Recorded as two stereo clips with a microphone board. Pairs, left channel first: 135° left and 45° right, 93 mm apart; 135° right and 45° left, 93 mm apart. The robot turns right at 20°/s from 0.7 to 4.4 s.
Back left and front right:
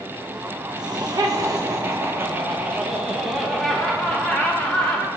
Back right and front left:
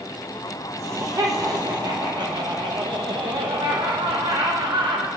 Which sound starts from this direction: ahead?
Laughter, at 0.8 s.